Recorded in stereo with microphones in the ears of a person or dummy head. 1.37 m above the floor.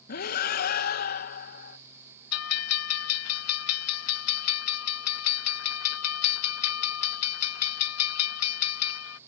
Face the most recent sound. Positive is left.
turn(degrees=80)